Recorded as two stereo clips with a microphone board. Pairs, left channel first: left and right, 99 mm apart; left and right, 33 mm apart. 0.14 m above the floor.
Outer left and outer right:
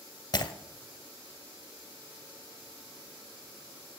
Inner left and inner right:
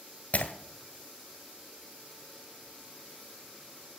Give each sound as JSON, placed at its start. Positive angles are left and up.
{"t": 0.3, "sound": "breaking glass", "side_deg": 45, "distance_m": 1.5}